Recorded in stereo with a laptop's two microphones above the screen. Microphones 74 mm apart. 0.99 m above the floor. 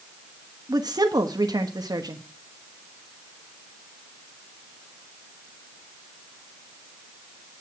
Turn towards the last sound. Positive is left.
turn(degrees=-65)  # may be behind; listen again after turning